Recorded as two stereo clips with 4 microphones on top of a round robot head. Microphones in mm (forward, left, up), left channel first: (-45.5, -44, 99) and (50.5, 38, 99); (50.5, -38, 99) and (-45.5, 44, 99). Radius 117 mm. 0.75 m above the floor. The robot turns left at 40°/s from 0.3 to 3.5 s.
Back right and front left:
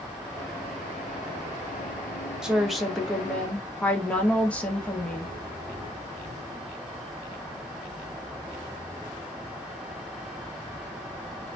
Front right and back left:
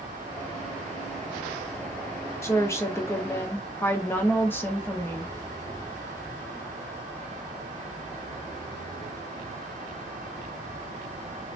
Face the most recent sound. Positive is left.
turn(degrees=-80)